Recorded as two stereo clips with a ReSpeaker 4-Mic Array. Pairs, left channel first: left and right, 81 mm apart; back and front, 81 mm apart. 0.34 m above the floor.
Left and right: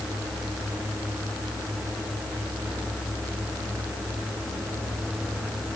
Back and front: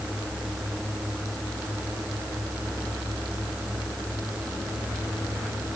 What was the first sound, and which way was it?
Only background noise.